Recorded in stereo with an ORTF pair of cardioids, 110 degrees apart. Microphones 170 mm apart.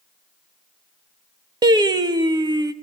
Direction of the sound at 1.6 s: 25° right.